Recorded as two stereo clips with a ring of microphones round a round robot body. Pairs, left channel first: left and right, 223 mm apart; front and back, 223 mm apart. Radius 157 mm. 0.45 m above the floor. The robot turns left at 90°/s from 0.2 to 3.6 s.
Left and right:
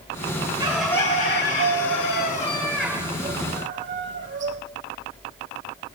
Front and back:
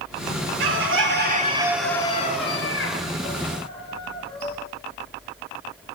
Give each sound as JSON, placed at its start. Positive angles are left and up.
{"t": 0.6, "sound": "a bird", "azimuth_deg": -160, "distance_m": 1.8}